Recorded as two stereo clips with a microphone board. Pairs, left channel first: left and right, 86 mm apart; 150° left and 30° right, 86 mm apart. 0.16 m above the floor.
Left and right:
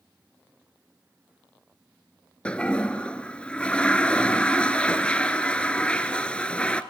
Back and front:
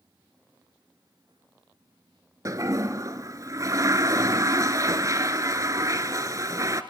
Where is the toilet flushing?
15° left, 1.0 m.